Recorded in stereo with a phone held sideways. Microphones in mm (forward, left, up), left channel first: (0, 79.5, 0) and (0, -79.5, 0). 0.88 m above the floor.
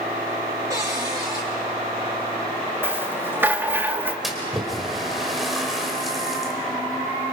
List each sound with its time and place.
0.7 s a cupboard door: 20° right (ahead or behind), 5 m
2.8 s a rattle: 15° right (ahead or behind), 1.5 m
4.2 s a splash: centre (ahead or behind), 3.5 m